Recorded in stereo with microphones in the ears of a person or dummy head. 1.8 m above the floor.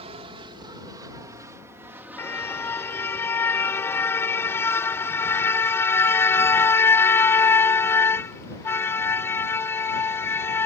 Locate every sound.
0.0 s an aircraft: 35° right (ahead or behind); by 10.7 s 25° left (ahead or behind)
2.2 s a car horn: 15° left (ahead or behind)